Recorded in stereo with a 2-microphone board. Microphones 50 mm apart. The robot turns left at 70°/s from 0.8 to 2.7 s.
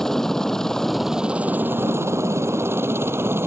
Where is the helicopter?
10° left (ahead or behind); by 3.5 s 55° right (ahead or behind).